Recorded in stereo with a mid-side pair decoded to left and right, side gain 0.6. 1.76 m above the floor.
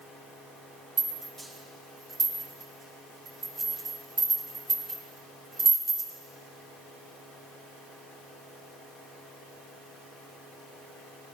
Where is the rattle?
35° right, 6 m.